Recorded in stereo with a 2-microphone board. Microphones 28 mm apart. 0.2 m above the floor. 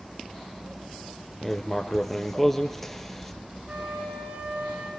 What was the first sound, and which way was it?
Writing, 10° left (ahead or behind).